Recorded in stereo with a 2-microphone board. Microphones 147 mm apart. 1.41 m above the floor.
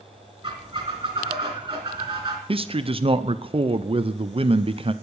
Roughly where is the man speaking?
Right.